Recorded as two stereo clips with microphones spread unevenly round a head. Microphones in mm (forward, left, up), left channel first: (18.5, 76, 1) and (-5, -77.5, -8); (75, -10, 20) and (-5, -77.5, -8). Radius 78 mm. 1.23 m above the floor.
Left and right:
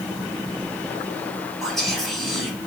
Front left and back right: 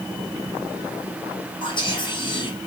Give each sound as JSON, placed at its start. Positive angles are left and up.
{"t": 1.6, "sound": "whispering", "azimuth_deg": -5, "distance_m": 1.2}